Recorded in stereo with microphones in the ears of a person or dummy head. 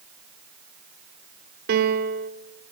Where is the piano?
55° right (ahead or behind), 2.5 m.